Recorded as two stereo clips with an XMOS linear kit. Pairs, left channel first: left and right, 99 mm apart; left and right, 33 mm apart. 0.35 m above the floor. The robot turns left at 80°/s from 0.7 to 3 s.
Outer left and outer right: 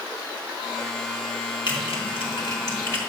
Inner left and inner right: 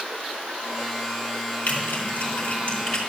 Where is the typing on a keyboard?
50° left (ahead or behind), 4 m; by 3.0 s 15° left (ahead or behind), 4 m.